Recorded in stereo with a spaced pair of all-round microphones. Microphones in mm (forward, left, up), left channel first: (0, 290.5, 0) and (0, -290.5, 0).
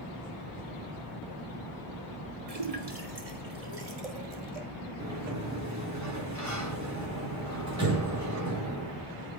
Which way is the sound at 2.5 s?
80° right.